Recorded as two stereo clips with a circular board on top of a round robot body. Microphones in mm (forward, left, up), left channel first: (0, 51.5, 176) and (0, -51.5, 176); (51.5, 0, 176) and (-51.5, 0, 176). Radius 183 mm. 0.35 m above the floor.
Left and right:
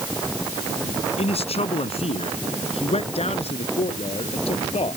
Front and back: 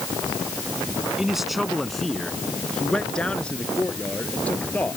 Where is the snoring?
I don't hear snoring.